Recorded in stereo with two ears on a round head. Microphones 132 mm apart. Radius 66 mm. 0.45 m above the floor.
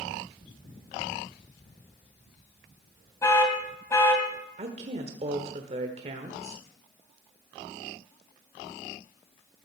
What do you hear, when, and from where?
3.2 s an alarm: 20° left (ahead or behind), 2 m
4.6 s a woman speaking: 45° right (ahead or behind), 1.2 m